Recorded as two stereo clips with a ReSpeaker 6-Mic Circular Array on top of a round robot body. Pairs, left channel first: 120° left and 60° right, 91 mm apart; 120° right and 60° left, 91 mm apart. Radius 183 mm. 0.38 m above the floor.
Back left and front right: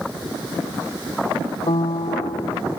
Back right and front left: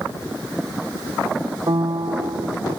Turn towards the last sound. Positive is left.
turn(degrees=105)